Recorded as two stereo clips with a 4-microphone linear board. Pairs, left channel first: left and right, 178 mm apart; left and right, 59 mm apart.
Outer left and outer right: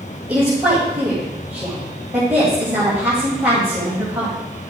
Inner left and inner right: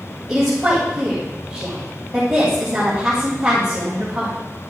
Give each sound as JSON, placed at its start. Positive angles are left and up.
{"t": 0.3, "sound": "a woman speaking", "side_deg": -5, "distance_m": 3.0}